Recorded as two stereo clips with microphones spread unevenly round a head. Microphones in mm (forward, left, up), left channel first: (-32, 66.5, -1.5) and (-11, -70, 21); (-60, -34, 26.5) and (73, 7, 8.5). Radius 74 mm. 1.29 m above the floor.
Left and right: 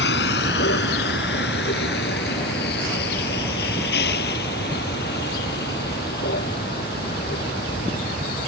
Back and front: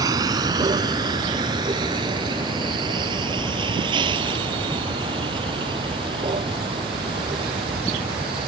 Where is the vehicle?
85° left; by 8.5 s 75° left.